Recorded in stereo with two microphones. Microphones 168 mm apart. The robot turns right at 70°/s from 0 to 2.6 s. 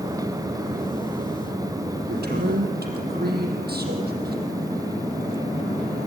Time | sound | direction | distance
2.1 | a man speaking | 115° right | 5 m